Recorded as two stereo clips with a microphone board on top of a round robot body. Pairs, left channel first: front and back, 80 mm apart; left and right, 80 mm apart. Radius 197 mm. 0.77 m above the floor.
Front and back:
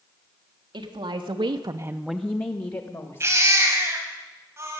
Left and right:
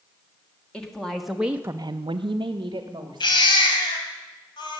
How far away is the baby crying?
About 2.5 m.